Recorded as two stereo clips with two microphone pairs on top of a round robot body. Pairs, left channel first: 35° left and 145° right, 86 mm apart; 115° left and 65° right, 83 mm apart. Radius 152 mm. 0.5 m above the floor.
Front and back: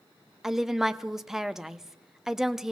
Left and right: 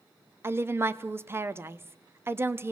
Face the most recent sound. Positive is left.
turn(degrees=-60)